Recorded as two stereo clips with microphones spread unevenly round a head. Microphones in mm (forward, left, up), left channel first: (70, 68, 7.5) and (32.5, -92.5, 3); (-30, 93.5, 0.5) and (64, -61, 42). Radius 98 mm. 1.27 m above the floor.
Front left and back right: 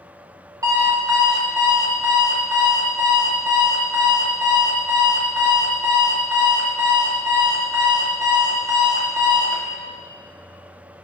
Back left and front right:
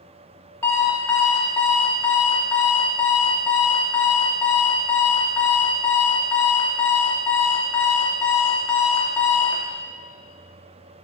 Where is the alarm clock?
145° right, 0.8 m.